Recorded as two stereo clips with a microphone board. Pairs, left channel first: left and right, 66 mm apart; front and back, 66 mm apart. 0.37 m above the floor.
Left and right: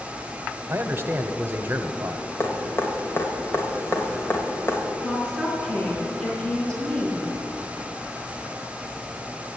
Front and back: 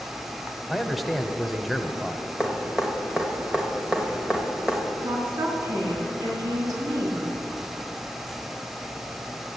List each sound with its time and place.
0.7 s a man speaking: 85° right, 1.0 m
2.4 s dripping: 115° left, 1.9 m
5.0 s a woman speaking: 165° left, 4 m